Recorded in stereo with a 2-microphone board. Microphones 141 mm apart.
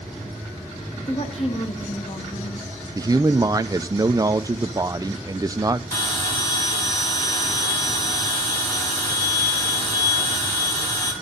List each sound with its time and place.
1.1 s a woman speaking: 50° left (ahead or behind), 1.7 m
3.0 s a man speaking: 25° right (ahead or behind), 0.6 m
5.9 s a bell: 25° left (ahead or behind), 4 m